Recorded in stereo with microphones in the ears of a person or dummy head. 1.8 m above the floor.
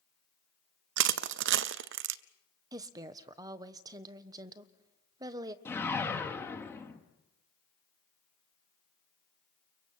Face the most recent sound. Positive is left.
turn(degrees=10)  # may be behind; listen again after turning